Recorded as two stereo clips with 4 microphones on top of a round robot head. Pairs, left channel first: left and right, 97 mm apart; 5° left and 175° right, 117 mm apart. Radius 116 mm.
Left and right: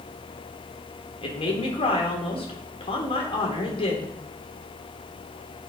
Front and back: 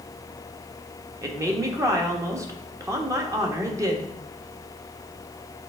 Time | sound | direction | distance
1.2 | a woman speaking | 125° left | 1.6 m